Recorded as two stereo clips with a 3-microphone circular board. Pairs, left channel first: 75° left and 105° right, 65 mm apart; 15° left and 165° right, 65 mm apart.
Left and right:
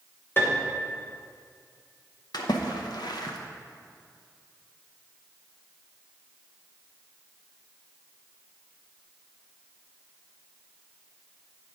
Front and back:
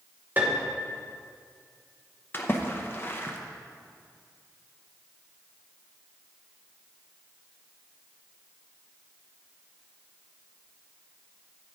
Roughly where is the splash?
Left.